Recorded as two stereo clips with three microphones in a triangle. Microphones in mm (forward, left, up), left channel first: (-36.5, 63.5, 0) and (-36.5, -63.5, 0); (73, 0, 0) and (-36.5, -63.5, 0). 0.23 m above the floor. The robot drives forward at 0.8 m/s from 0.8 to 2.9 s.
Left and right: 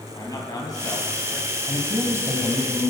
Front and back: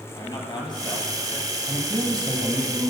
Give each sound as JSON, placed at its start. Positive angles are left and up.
{"t": 0.1, "sound": "a man speaking", "azimuth_deg": 50, "distance_m": 1.9}
{"t": 1.7, "sound": "a man speaking", "azimuth_deg": -115, "distance_m": 1.4}